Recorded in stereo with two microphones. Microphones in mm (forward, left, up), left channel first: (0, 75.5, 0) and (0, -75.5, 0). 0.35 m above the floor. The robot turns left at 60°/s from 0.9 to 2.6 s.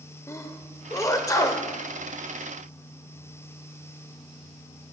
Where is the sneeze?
20° left (ahead or behind), 0.9 m.